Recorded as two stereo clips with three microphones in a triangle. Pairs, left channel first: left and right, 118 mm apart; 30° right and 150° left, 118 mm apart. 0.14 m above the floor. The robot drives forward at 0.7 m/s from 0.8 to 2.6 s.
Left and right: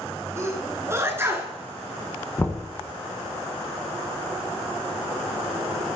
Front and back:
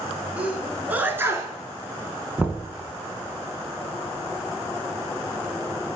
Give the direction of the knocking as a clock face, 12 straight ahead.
9 o'clock.